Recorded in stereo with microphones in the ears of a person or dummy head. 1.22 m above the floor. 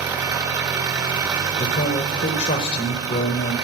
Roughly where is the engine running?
Right.